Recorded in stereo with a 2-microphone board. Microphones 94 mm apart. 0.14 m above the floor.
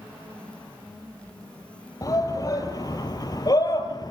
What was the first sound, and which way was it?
A shout, 40° left (ahead or behind).